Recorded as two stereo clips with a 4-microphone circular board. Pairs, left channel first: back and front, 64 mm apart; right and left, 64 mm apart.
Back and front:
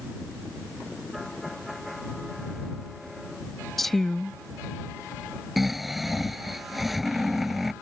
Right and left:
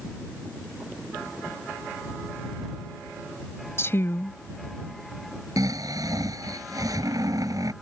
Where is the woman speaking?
95° right.